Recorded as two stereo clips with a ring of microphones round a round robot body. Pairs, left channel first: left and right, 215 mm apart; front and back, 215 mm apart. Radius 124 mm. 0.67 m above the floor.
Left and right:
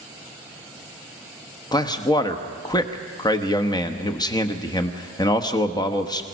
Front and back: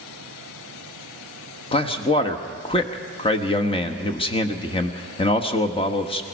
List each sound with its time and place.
1.7 s a man speaking: 35° left, 1.2 m